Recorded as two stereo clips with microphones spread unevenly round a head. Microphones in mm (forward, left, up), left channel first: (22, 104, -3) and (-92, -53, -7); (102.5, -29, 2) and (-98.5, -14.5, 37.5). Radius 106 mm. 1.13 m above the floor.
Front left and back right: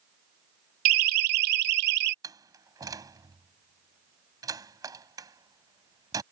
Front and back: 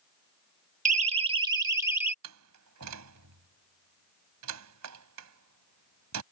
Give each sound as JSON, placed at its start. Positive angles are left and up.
{"t": 0.8, "sound": "a siren", "azimuth_deg": -130}
{"t": 2.2, "sound": "a door slam", "azimuth_deg": 160}